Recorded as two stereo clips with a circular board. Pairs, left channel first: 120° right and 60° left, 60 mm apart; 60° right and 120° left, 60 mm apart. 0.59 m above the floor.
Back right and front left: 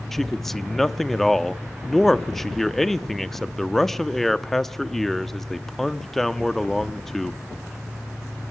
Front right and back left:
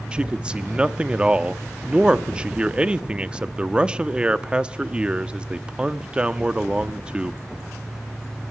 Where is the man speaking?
165° left, 0.7 m.